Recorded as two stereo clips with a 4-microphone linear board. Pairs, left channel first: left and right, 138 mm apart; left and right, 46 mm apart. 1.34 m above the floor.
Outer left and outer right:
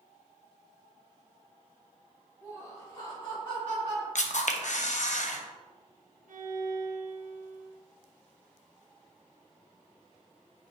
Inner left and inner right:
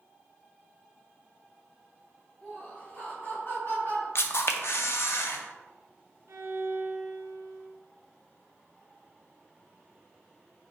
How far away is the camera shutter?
About 0.6 m.